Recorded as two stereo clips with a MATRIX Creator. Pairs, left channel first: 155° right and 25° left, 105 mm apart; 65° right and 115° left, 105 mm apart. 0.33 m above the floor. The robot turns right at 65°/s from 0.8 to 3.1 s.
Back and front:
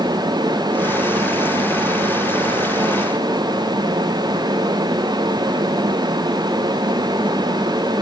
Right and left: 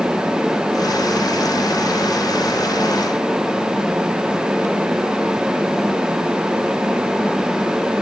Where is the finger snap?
I don't hear a finger snap.